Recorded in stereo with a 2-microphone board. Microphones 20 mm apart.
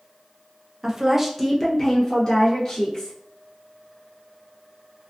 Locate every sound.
0.8 s a woman speaking: 35° right (ahead or behind), 0.5 m; by 3.2 s 35° left (ahead or behind), 1.4 m